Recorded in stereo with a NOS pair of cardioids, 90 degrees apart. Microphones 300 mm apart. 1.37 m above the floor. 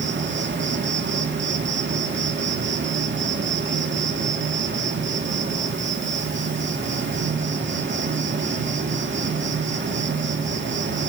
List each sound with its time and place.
0.0 s an insect: 40° right, 2 m